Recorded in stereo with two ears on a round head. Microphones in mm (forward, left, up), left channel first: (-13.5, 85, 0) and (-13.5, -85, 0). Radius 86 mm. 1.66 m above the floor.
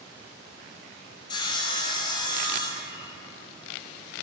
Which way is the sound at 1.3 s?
25° left (ahead or behind).